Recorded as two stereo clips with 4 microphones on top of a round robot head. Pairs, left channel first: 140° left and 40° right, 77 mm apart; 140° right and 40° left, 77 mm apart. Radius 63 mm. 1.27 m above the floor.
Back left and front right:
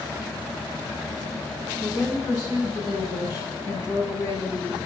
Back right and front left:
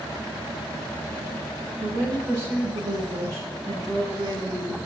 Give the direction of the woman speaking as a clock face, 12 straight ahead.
9 o'clock.